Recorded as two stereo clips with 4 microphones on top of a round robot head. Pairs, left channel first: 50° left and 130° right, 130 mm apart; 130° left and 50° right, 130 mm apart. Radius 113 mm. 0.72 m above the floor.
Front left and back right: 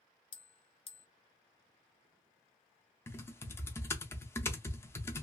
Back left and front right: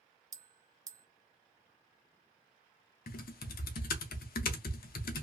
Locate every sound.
0.3 s a bell: 10° left, 0.6 m
3.1 s typing on a keyboard: 125° left, 0.5 m